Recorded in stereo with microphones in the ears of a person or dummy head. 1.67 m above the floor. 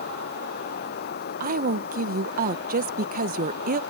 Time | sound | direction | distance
0.0 | running water | 55° left (ahead or behind) | ?
1.4 | a woman speaking | 50° right (ahead or behind) | ?